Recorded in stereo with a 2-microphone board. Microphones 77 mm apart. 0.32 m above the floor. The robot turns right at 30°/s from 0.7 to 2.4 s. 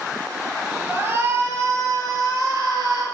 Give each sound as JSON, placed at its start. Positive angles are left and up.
{"t": 0.9, "sound": "a shout", "azimuth_deg": -155, "distance_m": 5.5}